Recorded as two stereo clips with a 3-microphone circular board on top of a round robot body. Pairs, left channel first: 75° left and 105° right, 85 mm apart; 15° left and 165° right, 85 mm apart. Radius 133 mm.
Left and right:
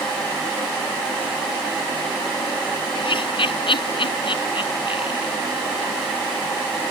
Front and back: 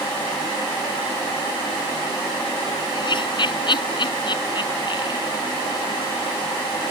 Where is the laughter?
50° left.